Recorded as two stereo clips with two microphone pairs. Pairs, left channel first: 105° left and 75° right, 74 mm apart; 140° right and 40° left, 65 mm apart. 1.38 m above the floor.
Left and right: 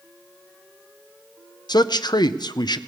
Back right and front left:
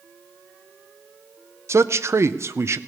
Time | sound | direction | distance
1.7 | a man speaking | 85° left | 0.5 m